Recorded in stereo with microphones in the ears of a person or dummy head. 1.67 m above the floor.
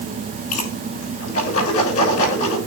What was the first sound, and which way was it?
A whoosh, 40° left (ahead or behind).